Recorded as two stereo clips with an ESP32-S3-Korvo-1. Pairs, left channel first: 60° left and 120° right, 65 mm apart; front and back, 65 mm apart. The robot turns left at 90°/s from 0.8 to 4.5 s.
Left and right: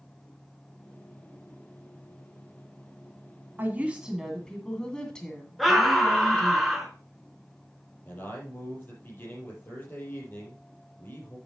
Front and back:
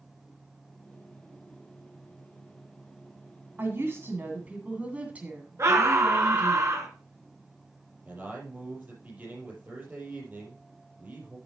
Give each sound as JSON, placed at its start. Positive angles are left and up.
{"t": 3.6, "sound": "a woman speaking", "azimuth_deg": -150, "distance_m": 2.0}
{"t": 5.6, "sound": "a scream", "azimuth_deg": 150, "distance_m": 3.0}
{"t": 8.1, "sound": "a man speaking", "azimuth_deg": 115, "distance_m": 5.5}